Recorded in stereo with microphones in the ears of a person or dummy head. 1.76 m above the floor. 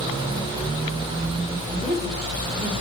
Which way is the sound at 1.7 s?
30° right (ahead or behind).